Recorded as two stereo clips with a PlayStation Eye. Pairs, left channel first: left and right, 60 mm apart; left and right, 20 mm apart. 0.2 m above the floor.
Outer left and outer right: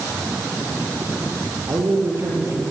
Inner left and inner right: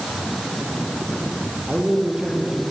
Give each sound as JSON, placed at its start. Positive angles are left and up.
{"t": 1.7, "sound": "a man speaking", "side_deg": -45, "distance_m": 7.5}